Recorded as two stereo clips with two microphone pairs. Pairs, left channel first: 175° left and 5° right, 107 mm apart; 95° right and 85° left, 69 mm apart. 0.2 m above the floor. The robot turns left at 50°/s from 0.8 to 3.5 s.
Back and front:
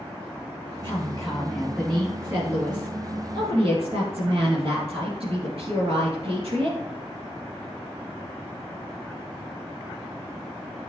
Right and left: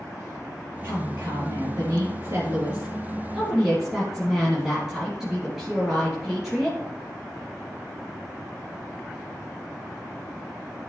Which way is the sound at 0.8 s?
135° left.